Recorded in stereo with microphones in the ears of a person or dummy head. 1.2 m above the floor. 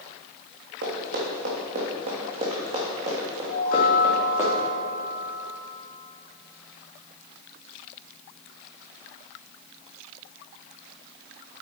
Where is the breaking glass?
I don't hear breaking glass.